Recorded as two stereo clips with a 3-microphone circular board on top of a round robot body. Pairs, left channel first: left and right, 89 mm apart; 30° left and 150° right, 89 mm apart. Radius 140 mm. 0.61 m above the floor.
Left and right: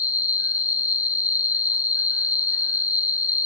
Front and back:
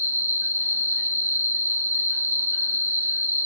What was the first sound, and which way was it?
An insect, 145° left.